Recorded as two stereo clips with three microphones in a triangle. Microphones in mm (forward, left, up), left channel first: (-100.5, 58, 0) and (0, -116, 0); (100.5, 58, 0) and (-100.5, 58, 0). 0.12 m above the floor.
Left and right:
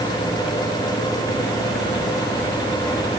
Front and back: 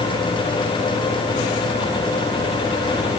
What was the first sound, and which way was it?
Only background noise.